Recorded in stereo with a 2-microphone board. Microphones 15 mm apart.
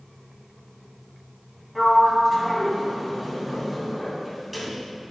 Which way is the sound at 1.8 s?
Centre (ahead or behind).